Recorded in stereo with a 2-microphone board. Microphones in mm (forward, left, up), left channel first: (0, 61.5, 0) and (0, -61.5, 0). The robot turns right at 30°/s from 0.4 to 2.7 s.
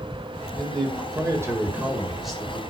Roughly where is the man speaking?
Ahead right.